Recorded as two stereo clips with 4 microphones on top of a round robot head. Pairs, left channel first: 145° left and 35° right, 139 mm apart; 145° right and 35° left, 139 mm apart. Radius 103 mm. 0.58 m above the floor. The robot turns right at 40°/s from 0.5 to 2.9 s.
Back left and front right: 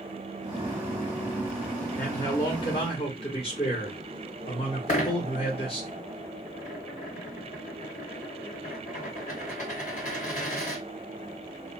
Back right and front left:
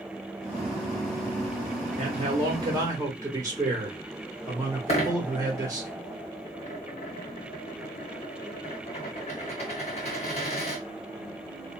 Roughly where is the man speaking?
Left.